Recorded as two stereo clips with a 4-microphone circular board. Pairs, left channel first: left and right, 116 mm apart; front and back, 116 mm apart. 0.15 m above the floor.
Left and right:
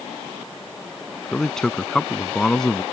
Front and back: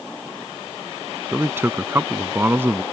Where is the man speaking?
165° left.